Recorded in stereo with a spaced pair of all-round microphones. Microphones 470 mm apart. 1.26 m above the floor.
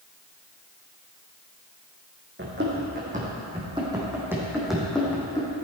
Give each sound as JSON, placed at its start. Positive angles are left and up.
{"t": 2.4, "sound": "running footsteps", "side_deg": -25, "distance_m": 3.5}